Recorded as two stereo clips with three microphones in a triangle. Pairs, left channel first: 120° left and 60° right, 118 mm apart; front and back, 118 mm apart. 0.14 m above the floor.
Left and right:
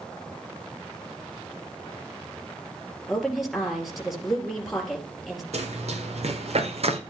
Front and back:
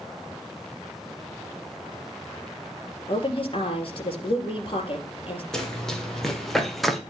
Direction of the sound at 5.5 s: 85° right.